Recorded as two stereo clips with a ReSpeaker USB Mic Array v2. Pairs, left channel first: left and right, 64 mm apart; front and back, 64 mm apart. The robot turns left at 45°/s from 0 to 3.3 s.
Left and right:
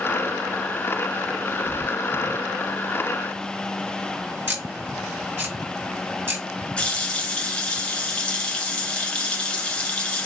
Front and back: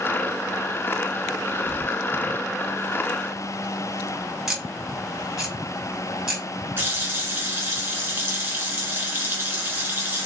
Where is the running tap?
145° left, 1.2 m.